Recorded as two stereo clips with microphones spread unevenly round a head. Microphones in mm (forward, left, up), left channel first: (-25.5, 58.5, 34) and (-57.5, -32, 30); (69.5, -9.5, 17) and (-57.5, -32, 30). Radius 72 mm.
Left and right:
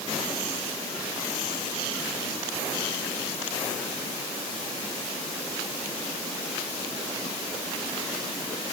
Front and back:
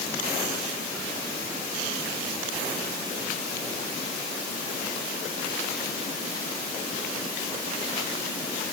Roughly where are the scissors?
I don't hear scissors.